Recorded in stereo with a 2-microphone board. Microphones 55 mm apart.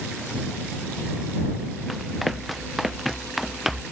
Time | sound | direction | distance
1.9 | running footsteps | centre (ahead or behind) | ?